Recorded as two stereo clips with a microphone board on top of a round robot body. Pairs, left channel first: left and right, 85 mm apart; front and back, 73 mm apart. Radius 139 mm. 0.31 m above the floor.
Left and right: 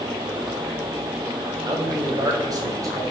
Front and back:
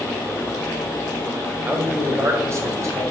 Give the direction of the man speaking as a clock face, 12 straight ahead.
4 o'clock.